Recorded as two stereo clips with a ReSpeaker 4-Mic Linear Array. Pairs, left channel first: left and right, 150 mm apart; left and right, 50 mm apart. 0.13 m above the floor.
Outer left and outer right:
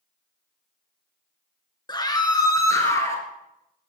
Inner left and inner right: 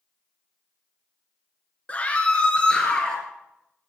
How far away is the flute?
No flute in this recording.